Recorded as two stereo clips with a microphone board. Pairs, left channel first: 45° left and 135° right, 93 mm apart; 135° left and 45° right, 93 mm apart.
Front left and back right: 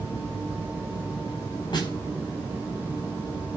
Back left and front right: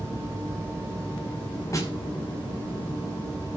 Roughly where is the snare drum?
Left.